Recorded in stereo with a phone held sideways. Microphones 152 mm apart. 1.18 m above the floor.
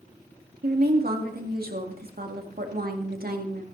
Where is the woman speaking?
70° right (ahead or behind), 2.0 m.